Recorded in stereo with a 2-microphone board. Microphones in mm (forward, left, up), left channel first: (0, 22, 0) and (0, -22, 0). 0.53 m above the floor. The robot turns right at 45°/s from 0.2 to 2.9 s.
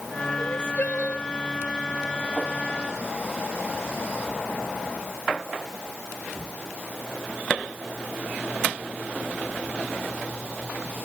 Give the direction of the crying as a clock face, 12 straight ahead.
8 o'clock.